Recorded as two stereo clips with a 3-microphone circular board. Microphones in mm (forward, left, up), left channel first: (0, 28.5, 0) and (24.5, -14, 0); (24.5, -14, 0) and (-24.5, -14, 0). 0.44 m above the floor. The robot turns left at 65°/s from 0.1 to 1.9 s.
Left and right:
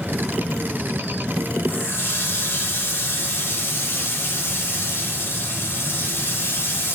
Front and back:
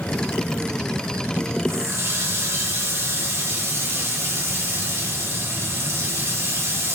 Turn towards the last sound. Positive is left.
turn(degrees=160)